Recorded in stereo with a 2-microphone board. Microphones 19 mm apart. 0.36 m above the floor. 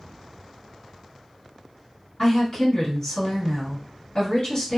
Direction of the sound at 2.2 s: 30° left (ahead or behind).